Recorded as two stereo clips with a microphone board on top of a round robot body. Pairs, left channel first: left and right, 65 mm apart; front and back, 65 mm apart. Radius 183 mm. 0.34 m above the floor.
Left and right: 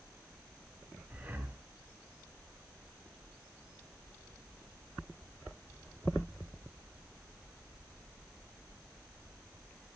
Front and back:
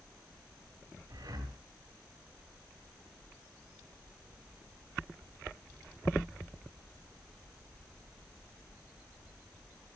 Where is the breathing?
155° right, 2.5 m.